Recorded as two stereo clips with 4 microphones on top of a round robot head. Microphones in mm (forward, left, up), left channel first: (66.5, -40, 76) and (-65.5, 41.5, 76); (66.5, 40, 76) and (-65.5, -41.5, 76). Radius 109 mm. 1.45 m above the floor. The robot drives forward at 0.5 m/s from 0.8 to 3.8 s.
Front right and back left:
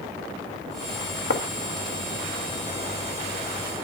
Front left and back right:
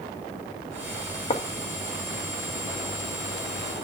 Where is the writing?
25° right, 1.2 m.